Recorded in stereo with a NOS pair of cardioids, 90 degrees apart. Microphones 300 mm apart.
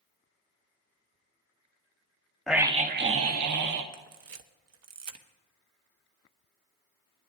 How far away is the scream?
About 1.2 m.